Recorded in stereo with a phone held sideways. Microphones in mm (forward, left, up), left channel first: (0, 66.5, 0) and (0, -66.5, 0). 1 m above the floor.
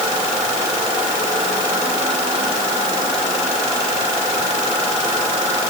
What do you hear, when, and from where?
Only background noise.